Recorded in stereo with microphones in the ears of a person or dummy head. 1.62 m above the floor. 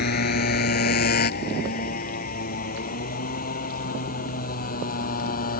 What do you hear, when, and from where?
0.0 s a motorcycle: 55° left (ahead or behind); by 5.6 s 45° left (ahead or behind)